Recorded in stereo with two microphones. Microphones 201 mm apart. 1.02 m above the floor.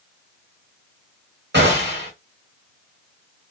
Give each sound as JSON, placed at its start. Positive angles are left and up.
{"t": 1.5, "sound": "a gunshot", "side_deg": -55, "distance_m": 1.5}